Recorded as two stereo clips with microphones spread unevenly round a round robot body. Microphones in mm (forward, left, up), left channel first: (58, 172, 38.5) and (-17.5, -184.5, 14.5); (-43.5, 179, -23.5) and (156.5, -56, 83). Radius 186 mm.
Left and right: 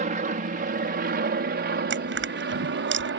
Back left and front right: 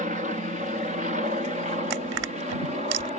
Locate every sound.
0.0 s an aircraft: 130° right; by 3.2 s 135° right
1.9 s crushing: 45° right